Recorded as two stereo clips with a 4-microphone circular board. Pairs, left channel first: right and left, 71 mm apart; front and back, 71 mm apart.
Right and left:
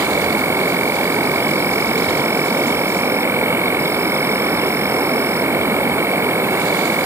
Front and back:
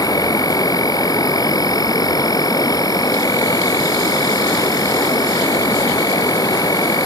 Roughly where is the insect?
Ahead left.